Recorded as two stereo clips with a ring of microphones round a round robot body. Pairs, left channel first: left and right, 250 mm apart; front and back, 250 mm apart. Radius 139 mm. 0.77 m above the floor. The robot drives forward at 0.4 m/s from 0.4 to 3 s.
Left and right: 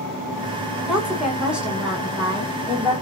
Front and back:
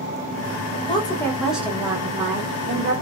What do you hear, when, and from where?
0.9 s a woman speaking: 10° right, 0.8 m; by 2.9 s 175° right, 0.9 m